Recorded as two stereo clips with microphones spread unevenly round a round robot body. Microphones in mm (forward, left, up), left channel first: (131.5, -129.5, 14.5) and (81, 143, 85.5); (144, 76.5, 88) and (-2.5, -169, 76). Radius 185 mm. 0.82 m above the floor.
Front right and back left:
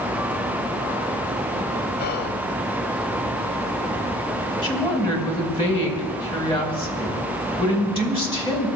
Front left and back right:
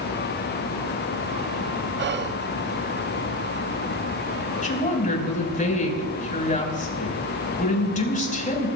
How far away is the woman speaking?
About 5.5 m.